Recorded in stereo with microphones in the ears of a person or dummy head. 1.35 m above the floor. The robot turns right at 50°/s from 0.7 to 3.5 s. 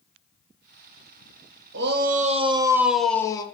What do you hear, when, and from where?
1.7 s a shout: 60° right, 1.0 m; by 3.4 s 25° left, 1.0 m